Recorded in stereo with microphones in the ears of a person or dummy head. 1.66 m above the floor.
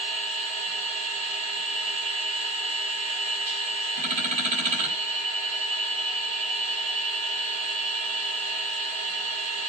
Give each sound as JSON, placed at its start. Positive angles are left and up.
{"t": 0.0, "sound": "a machine running", "side_deg": -35, "distance_m": 6.5}